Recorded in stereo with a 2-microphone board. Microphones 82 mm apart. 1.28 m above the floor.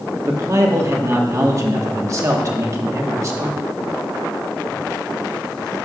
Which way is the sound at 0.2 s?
40° right (ahead or behind).